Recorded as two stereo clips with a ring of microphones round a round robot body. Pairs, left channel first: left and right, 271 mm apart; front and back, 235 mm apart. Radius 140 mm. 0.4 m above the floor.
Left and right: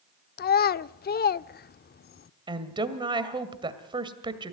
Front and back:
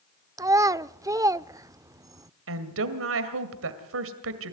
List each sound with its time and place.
0.4 s a child speaking: 110° left, 0.5 m
2.5 s a woman speaking: 160° right, 2.0 m